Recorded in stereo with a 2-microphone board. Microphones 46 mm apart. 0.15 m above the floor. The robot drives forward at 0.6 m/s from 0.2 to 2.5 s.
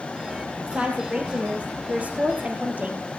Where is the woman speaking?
25° right (ahead or behind), 4.5 m; by 3.1 s 35° right (ahead or behind), 3.5 m.